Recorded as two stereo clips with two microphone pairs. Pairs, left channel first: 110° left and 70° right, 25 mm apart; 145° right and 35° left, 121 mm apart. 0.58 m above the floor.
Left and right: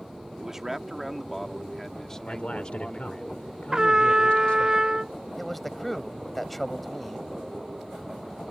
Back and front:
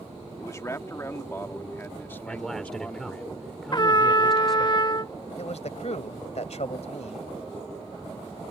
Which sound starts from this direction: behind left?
A man speaking, at 2.3 s.